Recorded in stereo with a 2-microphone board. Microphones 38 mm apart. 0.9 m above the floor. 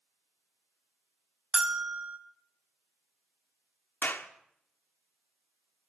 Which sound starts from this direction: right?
A bell, at 1.5 s.